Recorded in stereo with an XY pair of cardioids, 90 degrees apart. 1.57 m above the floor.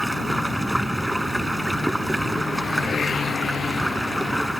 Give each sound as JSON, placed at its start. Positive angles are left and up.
{"t": 0.0, "sound": "running water", "azimuth_deg": -5}